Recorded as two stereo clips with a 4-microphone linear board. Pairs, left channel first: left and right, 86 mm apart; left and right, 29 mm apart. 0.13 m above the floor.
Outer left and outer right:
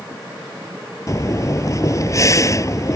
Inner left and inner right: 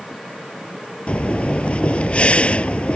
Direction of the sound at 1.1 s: 40° left (ahead or behind).